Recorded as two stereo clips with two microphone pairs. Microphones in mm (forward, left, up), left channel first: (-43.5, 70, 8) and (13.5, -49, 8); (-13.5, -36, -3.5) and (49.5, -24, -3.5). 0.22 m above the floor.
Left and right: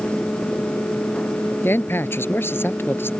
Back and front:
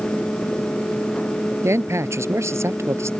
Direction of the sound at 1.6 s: 45° left.